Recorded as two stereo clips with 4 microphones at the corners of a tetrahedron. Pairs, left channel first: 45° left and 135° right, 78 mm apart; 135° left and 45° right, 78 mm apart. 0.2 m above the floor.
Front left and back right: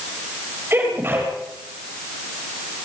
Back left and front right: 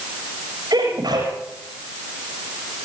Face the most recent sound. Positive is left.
turn(degrees=-75)